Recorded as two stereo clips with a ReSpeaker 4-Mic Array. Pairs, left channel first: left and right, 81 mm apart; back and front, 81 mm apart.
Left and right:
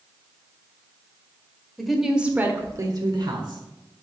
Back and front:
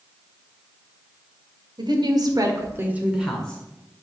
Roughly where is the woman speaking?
Ahead.